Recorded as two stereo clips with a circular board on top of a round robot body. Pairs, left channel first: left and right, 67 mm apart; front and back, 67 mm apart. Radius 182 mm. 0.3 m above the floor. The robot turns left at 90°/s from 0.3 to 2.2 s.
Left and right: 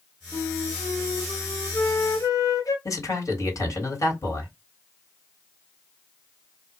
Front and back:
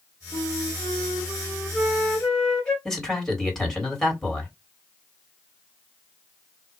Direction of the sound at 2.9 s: 80° left.